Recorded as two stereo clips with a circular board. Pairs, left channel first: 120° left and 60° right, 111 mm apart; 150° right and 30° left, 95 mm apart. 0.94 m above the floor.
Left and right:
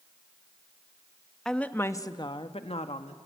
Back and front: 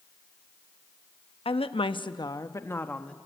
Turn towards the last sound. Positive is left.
turn(degrees=130)